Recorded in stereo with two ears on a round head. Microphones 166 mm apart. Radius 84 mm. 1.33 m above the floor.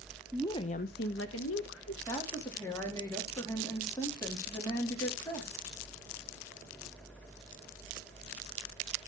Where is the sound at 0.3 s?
Centre (ahead or behind), 0.6 m; by 2.0 s 80° left, 1.6 m.